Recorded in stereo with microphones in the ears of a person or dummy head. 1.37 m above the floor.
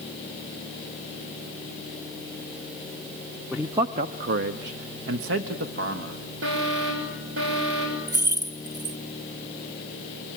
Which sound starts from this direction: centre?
A man speaking, at 3.5 s.